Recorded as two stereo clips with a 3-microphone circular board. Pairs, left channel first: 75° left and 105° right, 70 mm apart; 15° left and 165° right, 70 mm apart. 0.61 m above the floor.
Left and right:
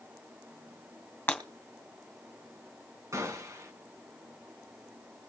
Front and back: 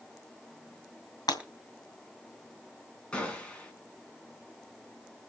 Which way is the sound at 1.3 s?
15° left.